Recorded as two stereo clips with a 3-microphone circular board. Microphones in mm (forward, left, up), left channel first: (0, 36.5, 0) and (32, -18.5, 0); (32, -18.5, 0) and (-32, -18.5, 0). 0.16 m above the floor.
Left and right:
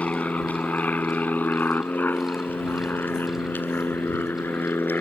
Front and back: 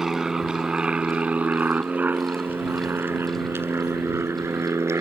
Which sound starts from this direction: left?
An aircraft, at 0.0 s.